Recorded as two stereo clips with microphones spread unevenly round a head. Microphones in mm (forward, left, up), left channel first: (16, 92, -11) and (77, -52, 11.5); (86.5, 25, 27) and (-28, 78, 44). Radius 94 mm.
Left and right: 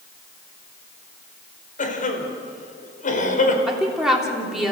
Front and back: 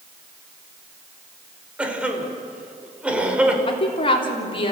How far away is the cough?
About 4.5 m.